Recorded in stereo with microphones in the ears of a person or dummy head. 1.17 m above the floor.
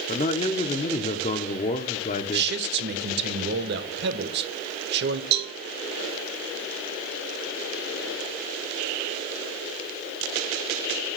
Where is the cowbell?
55° right (ahead or behind), 1.1 m.